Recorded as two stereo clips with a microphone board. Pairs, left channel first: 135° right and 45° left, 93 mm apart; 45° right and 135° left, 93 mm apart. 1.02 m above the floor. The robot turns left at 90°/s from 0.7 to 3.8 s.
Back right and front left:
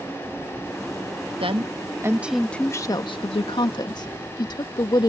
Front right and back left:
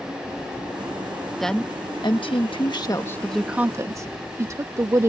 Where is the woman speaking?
45° left; by 5.1 s 170° right.